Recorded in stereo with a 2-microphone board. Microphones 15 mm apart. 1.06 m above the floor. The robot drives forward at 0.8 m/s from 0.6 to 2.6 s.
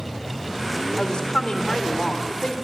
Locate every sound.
1.0 s a woman speaking: 60° left (ahead or behind), 4 m; by 2.5 s 75° left (ahead or behind), 3.5 m